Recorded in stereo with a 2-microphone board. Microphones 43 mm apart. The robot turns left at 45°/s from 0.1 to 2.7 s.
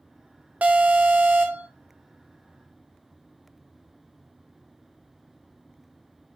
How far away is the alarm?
About 0.9 m.